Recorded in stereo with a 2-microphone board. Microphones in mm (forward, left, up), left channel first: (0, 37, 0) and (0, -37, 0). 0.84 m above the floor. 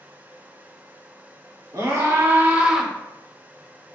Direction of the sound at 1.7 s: 50° right (ahead or behind).